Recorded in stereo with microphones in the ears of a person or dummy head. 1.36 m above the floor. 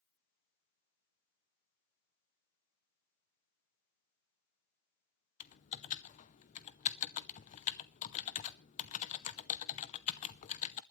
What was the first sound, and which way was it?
Typing on a keyboard, 45° left (ahead or behind).